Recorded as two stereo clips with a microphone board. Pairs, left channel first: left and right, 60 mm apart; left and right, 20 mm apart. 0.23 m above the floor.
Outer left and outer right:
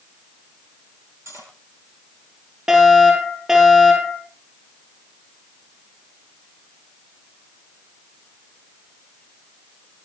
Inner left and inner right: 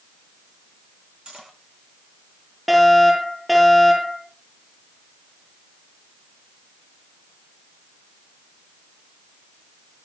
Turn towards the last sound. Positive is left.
turn(degrees=-10)  # may be behind; listen again after turning